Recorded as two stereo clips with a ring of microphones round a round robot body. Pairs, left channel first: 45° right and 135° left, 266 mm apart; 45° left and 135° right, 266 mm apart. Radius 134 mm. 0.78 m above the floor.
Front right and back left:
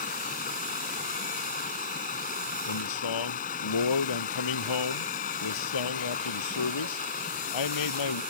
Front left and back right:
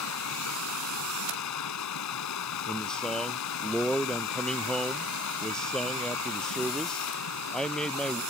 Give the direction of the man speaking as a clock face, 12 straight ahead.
1 o'clock.